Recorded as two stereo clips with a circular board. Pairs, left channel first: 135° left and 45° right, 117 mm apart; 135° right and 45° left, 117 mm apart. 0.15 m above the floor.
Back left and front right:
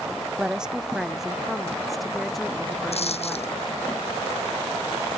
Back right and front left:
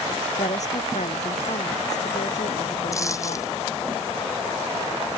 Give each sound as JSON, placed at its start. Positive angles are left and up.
{"t": 0.4, "sound": "a woman speaking", "azimuth_deg": -130}
{"t": 2.9, "sound": "a dropped coin", "azimuth_deg": 160}